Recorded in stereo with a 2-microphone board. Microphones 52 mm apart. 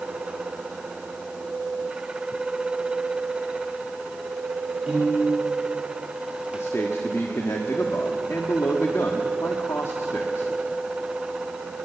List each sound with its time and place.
4.9 s a piano: 15° right (ahead or behind), 8.5 m
6.5 s a man speaking: 60° left (ahead or behind), 1.5 m